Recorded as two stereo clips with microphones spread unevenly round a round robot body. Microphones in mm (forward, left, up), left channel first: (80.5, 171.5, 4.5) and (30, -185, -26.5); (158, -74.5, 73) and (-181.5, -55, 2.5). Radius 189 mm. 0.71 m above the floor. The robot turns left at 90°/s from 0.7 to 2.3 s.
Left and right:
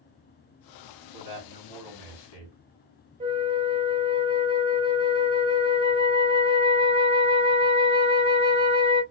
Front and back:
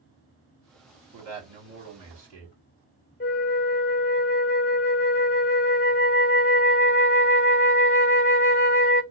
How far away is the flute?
About 0.7 m.